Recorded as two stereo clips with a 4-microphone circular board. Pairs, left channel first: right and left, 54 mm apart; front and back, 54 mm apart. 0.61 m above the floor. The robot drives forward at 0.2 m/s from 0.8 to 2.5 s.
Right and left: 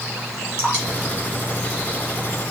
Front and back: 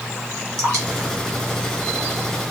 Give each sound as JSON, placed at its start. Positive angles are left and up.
{"t": 0.6, "sound": "dripping", "azimuth_deg": -140, "distance_m": 2.5}